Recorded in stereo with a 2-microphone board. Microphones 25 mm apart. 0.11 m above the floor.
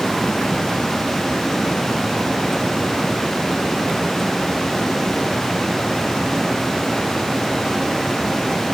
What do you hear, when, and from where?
Only background noise.